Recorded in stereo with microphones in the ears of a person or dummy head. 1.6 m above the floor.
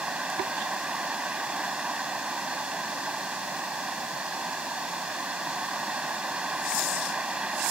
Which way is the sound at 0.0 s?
Centre (ahead or behind).